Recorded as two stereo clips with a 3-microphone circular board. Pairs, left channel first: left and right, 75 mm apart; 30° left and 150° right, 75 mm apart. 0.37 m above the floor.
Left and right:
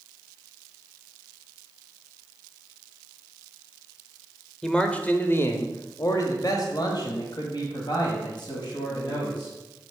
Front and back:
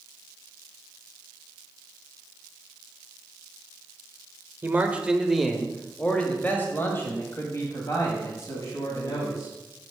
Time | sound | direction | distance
4.6 | a man speaking | 165° left | 0.9 m